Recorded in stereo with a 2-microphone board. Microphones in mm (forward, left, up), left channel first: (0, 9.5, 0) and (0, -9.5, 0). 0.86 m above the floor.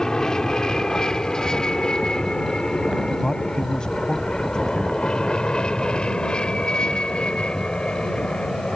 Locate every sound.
0.0 s an aircraft: 30° left (ahead or behind); by 8.8 s 55° left (ahead or behind)
3.2 s a man speaking: 40° left (ahead or behind)